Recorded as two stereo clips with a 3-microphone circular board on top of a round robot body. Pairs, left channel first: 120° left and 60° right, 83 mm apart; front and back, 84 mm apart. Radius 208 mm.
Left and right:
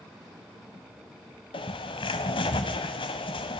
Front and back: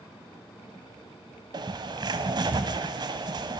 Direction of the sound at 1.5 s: 140° left.